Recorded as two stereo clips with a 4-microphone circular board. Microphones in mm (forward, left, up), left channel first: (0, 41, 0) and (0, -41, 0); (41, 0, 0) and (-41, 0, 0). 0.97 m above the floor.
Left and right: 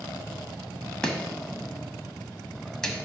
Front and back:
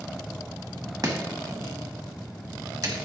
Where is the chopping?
170° left, 1.1 m.